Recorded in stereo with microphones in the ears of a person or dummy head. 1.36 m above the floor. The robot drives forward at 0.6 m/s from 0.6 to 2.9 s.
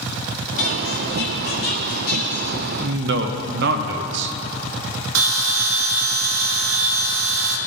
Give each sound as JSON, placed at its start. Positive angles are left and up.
{"t": 0.6, "sound": "a squeak", "side_deg": 70, "distance_m": 1.3}
{"t": 2.8, "sound": "a man speaking", "side_deg": -60, "distance_m": 1.0}
{"t": 5.2, "sound": "a bell", "side_deg": -80, "distance_m": 1.3}